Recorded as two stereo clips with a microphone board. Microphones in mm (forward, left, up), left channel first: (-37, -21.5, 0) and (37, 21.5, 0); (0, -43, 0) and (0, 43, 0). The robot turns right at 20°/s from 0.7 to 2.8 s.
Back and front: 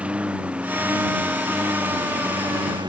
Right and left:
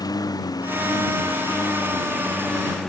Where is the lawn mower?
45° right; by 2.9 s 5° right.